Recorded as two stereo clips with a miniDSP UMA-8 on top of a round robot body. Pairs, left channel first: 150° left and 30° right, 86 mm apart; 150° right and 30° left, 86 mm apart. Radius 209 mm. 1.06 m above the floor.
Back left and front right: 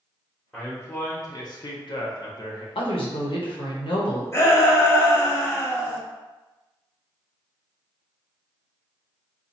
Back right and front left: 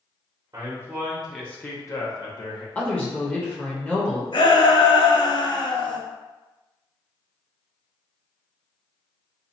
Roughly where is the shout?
Behind right.